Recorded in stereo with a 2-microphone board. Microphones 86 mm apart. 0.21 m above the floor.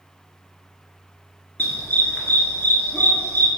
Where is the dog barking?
25° left (ahead or behind), 1.3 m.